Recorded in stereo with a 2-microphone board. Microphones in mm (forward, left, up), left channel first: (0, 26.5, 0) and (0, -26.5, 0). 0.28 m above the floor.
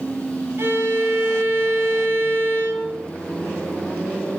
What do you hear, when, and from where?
0.6 s a violin: 55° right (ahead or behind), 2.5 m